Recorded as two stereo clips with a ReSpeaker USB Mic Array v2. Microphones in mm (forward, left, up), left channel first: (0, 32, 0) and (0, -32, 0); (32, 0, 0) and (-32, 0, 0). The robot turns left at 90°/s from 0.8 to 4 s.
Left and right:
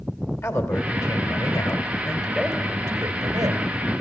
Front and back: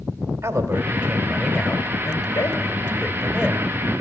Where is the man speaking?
130° left, 3 m; by 3.7 s 130° right, 3 m.